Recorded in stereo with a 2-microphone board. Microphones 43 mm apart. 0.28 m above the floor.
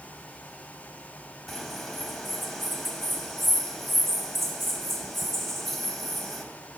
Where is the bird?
5° left (ahead or behind), 0.8 m.